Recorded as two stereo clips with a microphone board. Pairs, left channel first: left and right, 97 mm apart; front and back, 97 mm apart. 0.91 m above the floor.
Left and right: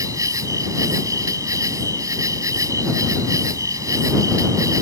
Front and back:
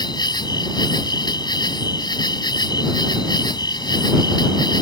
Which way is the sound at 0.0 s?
40° right.